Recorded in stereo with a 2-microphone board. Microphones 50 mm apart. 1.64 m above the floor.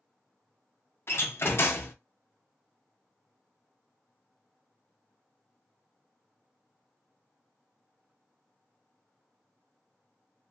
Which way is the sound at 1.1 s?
55° left (ahead or behind).